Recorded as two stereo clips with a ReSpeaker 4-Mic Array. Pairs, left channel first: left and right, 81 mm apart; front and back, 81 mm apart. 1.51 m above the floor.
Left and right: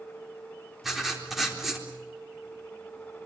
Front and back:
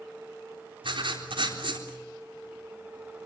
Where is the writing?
Straight behind, 4 m.